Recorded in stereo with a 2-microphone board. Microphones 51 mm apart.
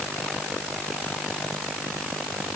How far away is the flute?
I don't hear a flute.